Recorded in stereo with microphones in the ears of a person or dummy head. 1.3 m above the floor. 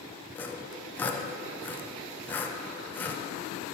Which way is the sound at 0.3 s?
10° left (ahead or behind).